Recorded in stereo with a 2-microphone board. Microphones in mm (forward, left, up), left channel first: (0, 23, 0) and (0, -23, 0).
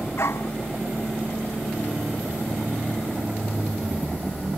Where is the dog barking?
65° left (ahead or behind).